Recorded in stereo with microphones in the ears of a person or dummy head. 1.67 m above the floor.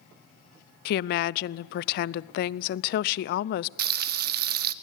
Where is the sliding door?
No sliding door in this recording.